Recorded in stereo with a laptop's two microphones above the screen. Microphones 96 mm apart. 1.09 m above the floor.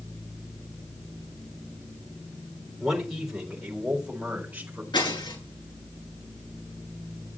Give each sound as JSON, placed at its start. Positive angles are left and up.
{"t": 2.8, "sound": "a man speaking", "side_deg": 0, "distance_m": 3.5}
{"t": 4.9, "sound": "breaking glass", "side_deg": 50, "distance_m": 8.0}